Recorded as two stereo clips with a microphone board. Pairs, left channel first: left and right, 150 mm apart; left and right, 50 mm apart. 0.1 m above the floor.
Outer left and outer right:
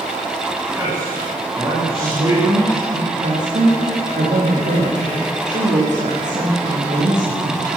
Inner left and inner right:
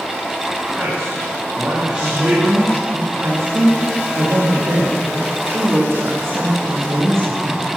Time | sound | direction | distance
0.7 | a man speaking | 15° right (ahead or behind) | 6.5 m
2.0 | a woman speaking | 55° right (ahead or behind) | 9.5 m